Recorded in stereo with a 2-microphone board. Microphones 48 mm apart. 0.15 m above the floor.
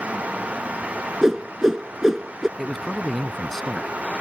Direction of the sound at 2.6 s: 5° left (ahead or behind).